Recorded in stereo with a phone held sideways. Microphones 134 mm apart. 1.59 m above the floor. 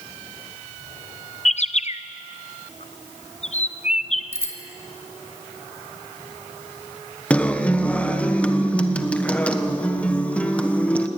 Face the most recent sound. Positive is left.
turn(degrees=10)  # may be behind; listen again after turning